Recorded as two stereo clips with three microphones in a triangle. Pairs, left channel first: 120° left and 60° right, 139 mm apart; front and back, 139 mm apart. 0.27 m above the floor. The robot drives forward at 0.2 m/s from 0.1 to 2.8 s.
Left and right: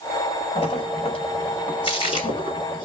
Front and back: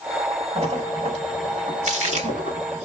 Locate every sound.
0.6 s a splash: 155° left, 0.8 m; by 2.9 s 165° left, 1.2 m